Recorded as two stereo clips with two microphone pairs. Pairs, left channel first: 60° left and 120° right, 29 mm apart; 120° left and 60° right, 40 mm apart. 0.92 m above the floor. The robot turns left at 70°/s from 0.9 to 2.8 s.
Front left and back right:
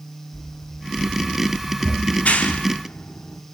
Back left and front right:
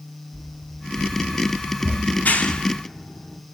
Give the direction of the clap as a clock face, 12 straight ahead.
9 o'clock.